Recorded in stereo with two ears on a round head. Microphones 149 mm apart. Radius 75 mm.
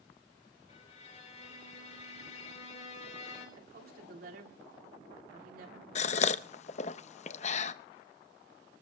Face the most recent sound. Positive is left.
turn(degrees=40)  # may be behind; listen again after turning